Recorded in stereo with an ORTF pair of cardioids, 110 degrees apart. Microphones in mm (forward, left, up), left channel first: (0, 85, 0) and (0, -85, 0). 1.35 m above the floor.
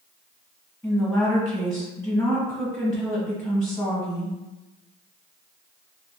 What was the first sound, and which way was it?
A woman speaking, 15° left.